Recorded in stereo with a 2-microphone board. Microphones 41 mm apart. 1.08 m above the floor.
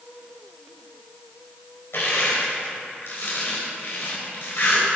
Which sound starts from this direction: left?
Crushing, at 1.9 s.